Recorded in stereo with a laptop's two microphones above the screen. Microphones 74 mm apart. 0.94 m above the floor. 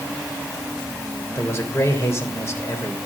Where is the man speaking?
35° left (ahead or behind), 3.5 m.